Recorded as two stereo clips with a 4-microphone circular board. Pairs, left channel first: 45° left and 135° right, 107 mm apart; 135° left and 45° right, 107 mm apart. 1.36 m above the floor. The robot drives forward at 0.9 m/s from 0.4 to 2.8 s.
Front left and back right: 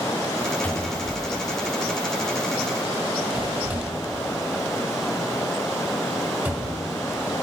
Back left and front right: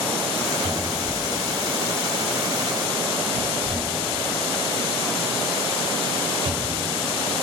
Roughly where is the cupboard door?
Ahead right.